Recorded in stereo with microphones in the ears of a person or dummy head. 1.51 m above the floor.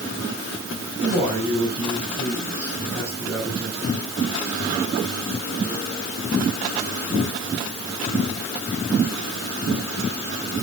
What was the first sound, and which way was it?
A man speaking, 30° right (ahead or behind).